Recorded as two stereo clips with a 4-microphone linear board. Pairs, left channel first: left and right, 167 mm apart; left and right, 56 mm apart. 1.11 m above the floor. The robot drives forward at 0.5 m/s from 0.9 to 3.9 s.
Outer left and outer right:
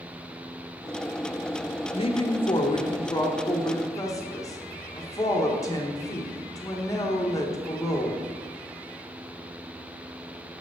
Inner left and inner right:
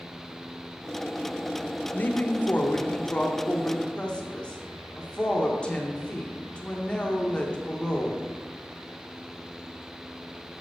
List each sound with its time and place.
1.9 s a woman speaking: 35° left (ahead or behind), 0.8 m; by 8.2 s 20° left (ahead or behind), 1.3 m